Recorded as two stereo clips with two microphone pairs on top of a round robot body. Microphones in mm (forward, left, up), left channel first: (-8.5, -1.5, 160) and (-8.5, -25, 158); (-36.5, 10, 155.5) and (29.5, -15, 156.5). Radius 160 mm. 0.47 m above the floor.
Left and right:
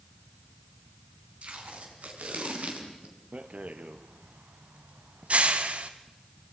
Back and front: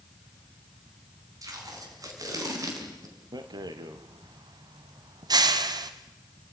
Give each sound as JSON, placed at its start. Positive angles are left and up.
{"t": 1.4, "sound": "tape being pulled", "azimuth_deg": -60, "distance_m": 4.5}
{"t": 3.3, "sound": "a rattle", "azimuth_deg": -50, "distance_m": 1.2}